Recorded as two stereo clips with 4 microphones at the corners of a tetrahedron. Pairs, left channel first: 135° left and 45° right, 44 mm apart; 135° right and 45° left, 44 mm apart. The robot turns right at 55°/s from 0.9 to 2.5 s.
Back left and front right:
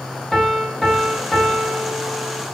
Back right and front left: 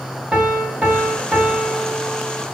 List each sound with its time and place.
0.3 s a piano: 70° left, 0.8 m; by 2.5 s 155° left, 0.8 m